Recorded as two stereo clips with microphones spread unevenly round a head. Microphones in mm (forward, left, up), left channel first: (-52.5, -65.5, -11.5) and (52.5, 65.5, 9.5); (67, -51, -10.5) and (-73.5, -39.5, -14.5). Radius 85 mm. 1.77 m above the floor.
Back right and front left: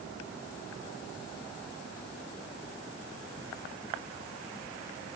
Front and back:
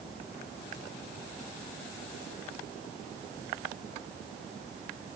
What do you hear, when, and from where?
Only background noise.